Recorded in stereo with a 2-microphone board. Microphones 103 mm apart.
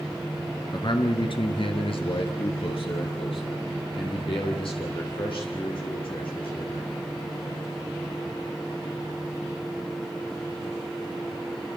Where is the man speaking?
45° left (ahead or behind), 2.5 m; by 6.9 s 55° left (ahead or behind), 10 m.